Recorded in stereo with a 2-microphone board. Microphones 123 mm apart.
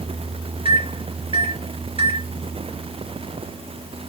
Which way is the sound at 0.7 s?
50° right (ahead or behind).